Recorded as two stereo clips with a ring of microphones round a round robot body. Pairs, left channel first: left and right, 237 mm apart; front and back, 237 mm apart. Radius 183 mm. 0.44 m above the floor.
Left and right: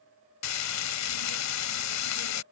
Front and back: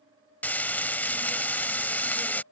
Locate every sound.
0.4 s frying: 85° left